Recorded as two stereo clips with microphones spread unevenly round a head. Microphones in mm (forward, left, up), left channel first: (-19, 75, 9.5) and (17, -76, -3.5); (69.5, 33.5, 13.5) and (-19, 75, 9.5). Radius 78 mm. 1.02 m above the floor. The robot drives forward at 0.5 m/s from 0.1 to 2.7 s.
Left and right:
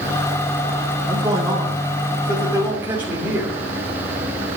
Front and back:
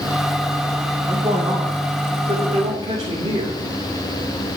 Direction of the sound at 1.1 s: 145° right.